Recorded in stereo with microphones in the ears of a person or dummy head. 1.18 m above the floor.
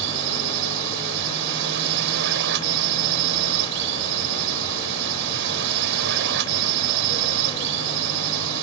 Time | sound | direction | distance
0.0 | a drone | 65° right (ahead or behind) | ?